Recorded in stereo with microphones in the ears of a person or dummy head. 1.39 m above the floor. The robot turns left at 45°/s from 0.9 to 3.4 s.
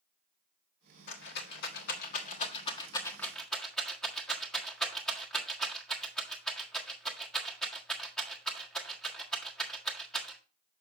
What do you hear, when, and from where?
1.1 s a rattle: 60° left (ahead or behind), 1.5 m; by 10.4 s 5° left (ahead or behind), 1.5 m